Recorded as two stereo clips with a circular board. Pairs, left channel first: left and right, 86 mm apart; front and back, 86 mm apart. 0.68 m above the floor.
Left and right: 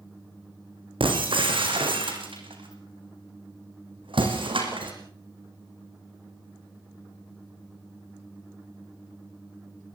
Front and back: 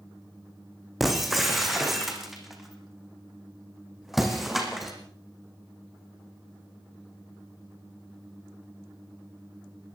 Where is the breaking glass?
95° right, 4 m.